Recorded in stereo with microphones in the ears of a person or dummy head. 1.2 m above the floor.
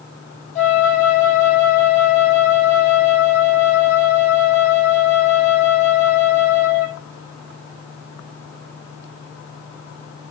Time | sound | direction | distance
0.6 | a flute | 50° left (ahead or behind) | 6.5 m